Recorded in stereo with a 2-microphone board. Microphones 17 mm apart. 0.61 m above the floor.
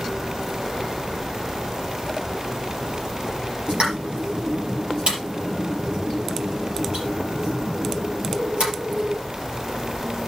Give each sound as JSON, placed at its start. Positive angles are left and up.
{"t": 3.7, "sound": "a pop", "side_deg": -80, "distance_m": 4.5}